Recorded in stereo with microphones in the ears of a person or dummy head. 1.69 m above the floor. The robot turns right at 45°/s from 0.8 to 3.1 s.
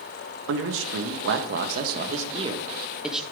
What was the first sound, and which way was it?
A man speaking, 105° right.